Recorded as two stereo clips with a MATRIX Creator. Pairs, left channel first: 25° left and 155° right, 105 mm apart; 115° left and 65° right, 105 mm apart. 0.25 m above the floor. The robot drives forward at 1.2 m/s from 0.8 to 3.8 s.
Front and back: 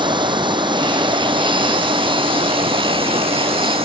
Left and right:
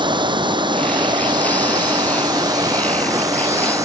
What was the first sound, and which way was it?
Running water, 115° right.